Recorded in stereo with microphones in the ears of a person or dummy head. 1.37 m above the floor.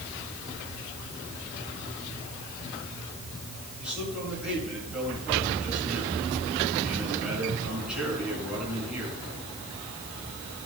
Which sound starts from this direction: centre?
A man speaking, at 3.8 s.